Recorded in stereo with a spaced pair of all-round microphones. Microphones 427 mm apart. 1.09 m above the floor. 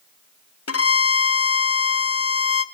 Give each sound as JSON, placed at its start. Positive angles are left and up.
{"t": 0.7, "sound": "a violin", "side_deg": 35, "distance_m": 0.5}